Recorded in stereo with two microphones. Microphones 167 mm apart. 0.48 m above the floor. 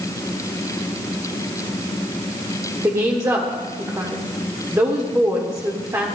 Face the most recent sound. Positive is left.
turn(degrees=-20)  # may be behind; listen again after turning